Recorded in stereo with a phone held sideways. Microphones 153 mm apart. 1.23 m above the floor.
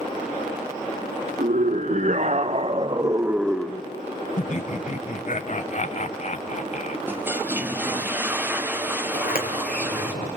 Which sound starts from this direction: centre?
A toilet flushing, at 7.1 s.